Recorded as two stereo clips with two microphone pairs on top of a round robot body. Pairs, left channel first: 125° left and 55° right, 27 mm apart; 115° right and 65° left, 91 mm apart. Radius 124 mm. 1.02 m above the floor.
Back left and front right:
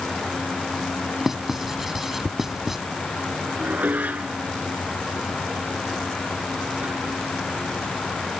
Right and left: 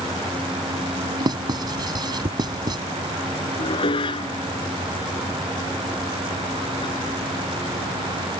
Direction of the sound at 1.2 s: 20° left.